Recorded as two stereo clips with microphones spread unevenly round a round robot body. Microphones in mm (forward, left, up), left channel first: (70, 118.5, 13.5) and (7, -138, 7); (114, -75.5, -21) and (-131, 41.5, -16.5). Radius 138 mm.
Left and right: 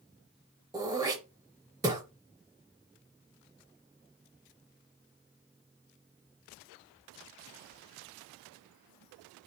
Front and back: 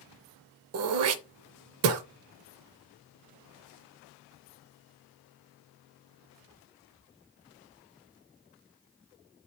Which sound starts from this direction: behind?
Throat clearing, at 0.7 s.